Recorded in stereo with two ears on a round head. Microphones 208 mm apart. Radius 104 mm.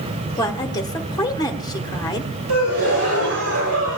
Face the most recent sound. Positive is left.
turn(degrees=-70)  # may be behind; listen again after turning